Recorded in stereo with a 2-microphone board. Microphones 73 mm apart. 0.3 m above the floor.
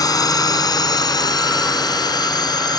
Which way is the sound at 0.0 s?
60° left (ahead or behind).